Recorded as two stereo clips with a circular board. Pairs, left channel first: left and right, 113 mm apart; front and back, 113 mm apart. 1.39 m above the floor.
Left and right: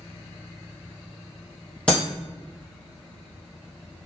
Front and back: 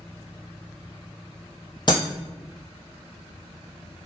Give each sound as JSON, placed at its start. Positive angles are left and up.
{"t": 1.9, "sound": "breaking glass", "azimuth_deg": 15, "distance_m": 1.8}